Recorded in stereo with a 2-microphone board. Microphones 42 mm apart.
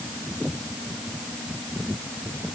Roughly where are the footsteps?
I don't hear footsteps.